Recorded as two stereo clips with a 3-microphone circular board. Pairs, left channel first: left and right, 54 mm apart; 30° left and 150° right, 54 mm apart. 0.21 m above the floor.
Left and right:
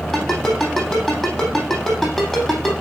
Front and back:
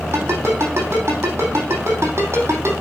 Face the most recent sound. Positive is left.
turn(degrees=175)